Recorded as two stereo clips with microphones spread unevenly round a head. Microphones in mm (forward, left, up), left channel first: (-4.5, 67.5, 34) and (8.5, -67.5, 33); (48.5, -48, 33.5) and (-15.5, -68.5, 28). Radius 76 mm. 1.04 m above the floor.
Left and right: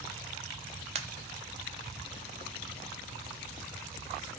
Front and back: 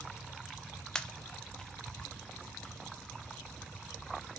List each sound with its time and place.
0.9 s a pop: 55° right, 0.5 m